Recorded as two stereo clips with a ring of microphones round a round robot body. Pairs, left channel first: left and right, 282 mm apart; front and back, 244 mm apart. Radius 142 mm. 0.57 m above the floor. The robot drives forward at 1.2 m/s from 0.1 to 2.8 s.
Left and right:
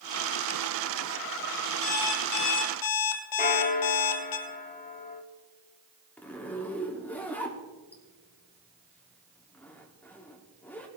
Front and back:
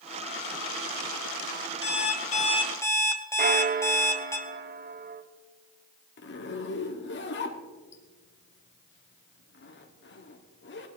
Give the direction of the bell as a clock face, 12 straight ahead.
7 o'clock.